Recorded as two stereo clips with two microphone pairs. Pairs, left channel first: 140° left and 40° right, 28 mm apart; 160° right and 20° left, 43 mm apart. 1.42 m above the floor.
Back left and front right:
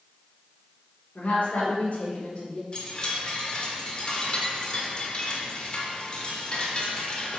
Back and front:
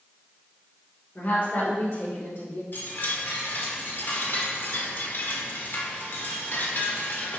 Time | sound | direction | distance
1.1 | a woman speaking | 160° left | 3.5 m
2.7 | a chime | 175° right | 1.4 m